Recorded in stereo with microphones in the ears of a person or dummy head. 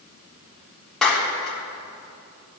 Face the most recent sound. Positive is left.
turn(degrees=0)  # may be behind; listen again after turning